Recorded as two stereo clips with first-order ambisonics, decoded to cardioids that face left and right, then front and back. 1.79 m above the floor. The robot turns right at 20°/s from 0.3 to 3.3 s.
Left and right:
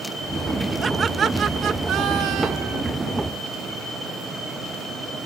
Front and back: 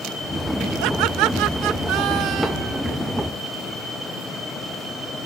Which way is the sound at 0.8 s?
160° right.